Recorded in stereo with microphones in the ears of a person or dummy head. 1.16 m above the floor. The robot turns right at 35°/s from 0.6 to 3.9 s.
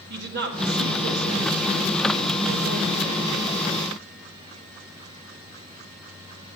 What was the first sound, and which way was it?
A woman speaking, 125° right.